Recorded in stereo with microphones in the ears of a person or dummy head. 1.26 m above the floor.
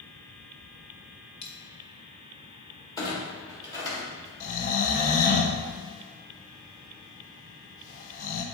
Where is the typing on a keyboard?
I don't hear typing on a keyboard.